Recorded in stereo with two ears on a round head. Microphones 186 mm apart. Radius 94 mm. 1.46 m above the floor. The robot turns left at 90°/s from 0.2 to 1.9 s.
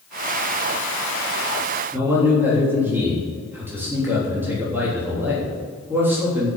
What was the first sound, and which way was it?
A man speaking, 10° right (ahead or behind).